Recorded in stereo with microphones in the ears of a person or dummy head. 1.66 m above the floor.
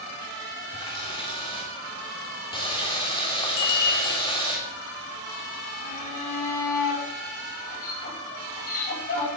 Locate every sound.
0.7 s a running tap: 25° left (ahead or behind), 3.5 m
3.6 s a bicycle bell: 45° left (ahead or behind), 3.5 m
5.8 s a shout: 45° left (ahead or behind), 6 m